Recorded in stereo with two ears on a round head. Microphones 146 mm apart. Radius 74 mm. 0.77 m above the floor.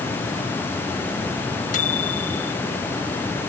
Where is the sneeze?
I don't hear a sneeze.